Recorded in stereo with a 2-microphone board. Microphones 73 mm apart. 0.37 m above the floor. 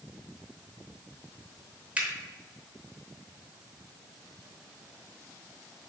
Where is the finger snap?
20° right (ahead or behind), 0.7 m.